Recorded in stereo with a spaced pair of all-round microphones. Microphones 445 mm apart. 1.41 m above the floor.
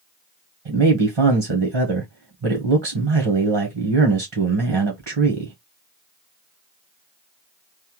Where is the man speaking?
75° right (ahead or behind), 1.1 m.